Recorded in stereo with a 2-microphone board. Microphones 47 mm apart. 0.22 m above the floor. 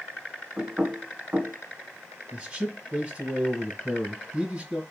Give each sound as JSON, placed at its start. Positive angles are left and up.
{"t": 0.6, "sound": "knocking", "side_deg": -40, "distance_m": 1.4}
{"t": 2.3, "sound": "a man speaking", "side_deg": -30, "distance_m": 1.5}